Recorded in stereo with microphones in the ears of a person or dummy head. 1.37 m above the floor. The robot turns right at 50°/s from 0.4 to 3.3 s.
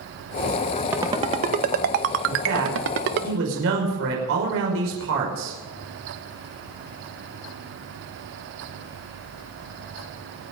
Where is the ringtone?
10° right (ahead or behind), 0.9 m; by 3.3 s 50° right (ahead or behind), 0.9 m.